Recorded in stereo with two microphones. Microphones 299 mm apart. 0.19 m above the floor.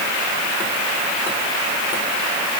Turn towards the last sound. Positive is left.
No sound to turn to.